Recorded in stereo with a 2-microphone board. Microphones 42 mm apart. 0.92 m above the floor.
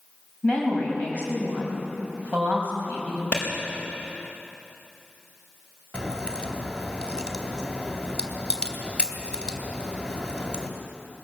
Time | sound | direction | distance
0.4 | a woman speaking | 25° left (ahead or behind) | 6 m
3.3 | a clap | 35° left (ahead or behind) | 4.5 m
5.9 | a crack | 25° left (ahead or behind) | 1.9 m